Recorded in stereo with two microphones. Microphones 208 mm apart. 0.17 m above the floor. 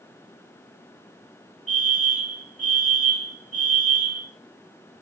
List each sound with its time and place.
1.7 s a fire alarm: 40° left (ahead or behind), 6 m